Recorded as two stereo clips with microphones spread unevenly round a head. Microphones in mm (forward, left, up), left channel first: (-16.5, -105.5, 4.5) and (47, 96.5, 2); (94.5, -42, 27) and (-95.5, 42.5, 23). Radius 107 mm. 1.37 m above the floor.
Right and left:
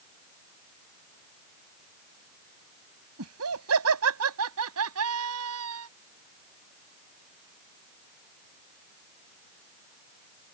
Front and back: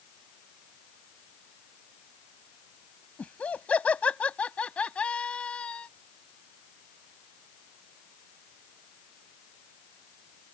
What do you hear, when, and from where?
3.2 s laughter: 60° left